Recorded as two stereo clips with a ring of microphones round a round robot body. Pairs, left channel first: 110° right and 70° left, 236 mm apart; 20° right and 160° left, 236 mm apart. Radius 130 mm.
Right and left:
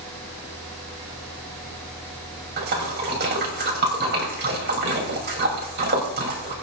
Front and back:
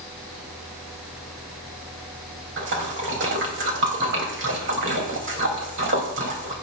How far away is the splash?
About 3.5 m.